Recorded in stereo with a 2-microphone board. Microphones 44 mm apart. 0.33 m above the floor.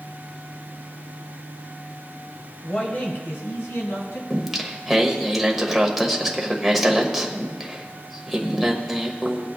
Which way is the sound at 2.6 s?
20° left (ahead or behind).